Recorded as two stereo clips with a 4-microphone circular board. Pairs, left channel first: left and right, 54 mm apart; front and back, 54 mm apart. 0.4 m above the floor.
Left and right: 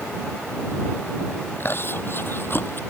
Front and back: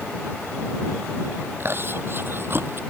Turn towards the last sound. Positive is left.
turn(degrees=135)